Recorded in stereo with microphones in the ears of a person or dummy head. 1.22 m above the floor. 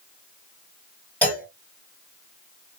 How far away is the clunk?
About 1.2 m.